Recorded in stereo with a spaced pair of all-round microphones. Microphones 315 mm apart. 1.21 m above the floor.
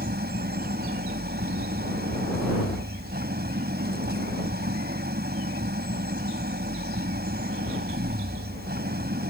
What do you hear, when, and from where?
0.0 s an engine running: 30° right (ahead or behind)